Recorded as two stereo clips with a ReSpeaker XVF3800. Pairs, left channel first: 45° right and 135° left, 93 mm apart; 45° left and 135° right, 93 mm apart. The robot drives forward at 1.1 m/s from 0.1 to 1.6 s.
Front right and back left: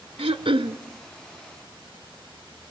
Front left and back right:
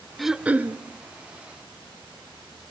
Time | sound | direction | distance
0.2 | throat clearing | 135° left | 0.6 m